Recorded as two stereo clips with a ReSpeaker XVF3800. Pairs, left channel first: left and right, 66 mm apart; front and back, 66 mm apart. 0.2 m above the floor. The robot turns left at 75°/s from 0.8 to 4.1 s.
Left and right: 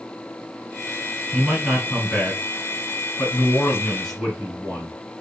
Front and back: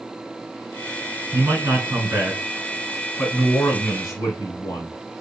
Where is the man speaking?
140° right, 2.5 m; by 4.9 s 10° left, 2.5 m.